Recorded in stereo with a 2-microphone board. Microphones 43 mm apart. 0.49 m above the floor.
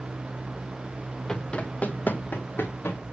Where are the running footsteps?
15° left (ahead or behind), 0.9 m; by 3.0 s 60° left (ahead or behind), 2.0 m.